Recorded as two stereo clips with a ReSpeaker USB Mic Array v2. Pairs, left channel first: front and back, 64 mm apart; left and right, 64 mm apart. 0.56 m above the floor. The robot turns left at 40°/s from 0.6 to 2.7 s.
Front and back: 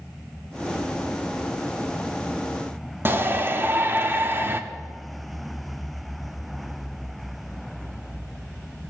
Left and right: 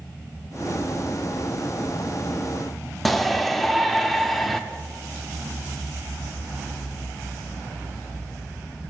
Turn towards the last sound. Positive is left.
turn(degrees=175)